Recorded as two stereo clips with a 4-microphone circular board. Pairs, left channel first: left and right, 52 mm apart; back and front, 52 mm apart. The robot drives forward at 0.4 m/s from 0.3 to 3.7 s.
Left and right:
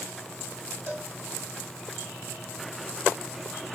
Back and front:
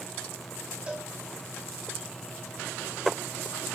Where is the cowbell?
65° right, 2.5 m; by 1.1 s 70° right, 2.5 m.